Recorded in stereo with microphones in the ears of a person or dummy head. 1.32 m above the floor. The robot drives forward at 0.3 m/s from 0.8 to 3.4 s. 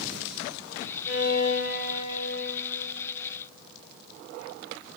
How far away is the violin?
About 2.5 m.